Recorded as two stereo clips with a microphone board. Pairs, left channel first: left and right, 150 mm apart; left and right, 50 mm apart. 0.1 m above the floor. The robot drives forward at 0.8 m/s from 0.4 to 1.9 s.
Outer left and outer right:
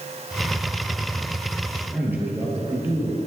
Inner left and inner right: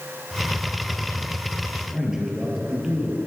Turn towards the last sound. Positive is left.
turn(degrees=-10)  # may be behind; listen again after turning